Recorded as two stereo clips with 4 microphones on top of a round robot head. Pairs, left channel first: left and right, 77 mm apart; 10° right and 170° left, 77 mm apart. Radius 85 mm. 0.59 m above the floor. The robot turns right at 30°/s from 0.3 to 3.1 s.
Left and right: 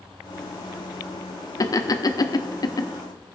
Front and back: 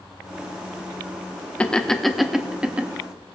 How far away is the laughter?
About 1.2 m.